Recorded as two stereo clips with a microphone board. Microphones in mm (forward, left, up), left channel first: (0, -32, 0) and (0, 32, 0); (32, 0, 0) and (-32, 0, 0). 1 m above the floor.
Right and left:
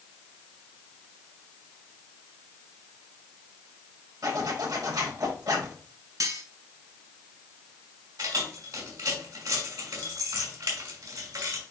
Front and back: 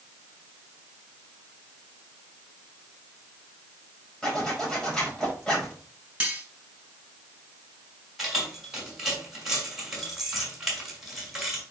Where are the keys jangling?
95° left, 5 m.